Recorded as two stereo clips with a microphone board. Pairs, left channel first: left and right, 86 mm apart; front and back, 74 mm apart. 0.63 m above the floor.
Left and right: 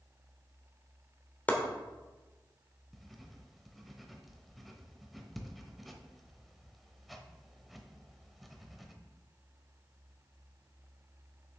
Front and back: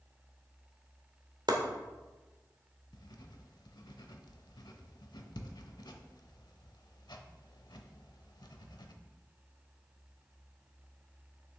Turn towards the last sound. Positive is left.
turn(degrees=0)